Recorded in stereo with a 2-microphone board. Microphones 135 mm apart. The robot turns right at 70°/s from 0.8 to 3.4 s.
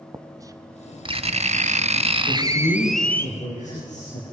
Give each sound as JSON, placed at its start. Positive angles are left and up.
{"t": 0.1, "sound": "writing", "azimuth_deg": -150, "distance_m": 1.1}
{"t": 2.3, "sound": "a man speaking", "azimuth_deg": 35, "distance_m": 6.5}